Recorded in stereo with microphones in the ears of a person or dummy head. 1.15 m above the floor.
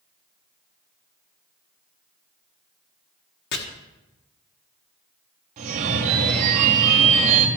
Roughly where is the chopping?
Left.